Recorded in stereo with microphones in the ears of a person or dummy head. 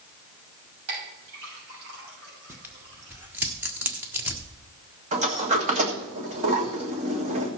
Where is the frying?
I don't hear frying.